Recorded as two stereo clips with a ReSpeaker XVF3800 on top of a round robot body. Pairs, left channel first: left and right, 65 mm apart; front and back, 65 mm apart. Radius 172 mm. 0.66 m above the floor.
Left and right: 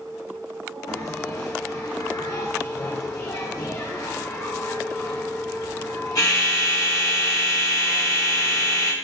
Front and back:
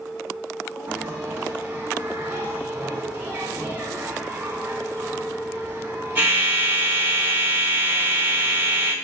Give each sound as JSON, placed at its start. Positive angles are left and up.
{"t": 0.9, "sound": "a bell", "azimuth_deg": 120, "distance_m": 1.8}